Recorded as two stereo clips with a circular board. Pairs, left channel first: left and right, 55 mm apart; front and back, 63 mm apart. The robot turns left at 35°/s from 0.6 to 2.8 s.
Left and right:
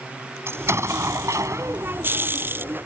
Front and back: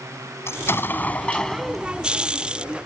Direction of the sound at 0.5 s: 50° right.